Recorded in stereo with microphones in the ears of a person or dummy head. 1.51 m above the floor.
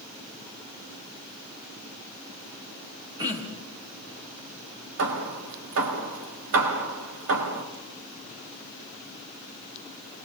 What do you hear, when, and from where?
3.2 s throat clearing: 20° right (ahead or behind), 3 m
5.0 s hammering: 70° right (ahead or behind), 3 m